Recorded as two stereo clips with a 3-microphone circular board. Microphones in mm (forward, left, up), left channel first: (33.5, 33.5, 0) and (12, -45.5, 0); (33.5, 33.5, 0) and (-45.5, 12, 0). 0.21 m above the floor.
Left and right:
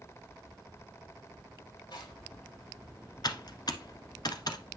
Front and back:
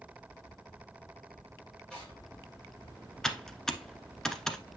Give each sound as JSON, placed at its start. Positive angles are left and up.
{"t": 1.9, "sound": "tearing paper", "azimuth_deg": 95, "distance_m": 5.5}
{"t": 3.2, "sound": "typing on a keyboard", "azimuth_deg": 100, "distance_m": 1.2}